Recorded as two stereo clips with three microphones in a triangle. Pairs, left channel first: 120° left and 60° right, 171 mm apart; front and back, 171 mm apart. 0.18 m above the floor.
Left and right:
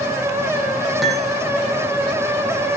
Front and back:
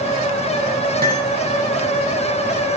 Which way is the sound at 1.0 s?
150° right.